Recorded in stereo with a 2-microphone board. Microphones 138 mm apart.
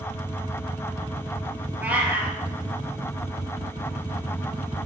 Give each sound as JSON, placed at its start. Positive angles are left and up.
{"t": 1.8, "sound": "a cat meowing", "side_deg": -10, "distance_m": 2.0}